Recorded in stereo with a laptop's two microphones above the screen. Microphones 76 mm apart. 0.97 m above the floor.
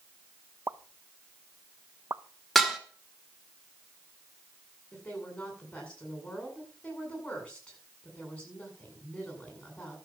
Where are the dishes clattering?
5° left (ahead or behind), 1.6 m.